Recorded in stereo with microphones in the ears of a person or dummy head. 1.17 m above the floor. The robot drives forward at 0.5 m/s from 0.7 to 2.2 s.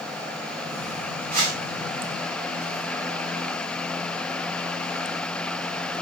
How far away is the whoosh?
About 3 m.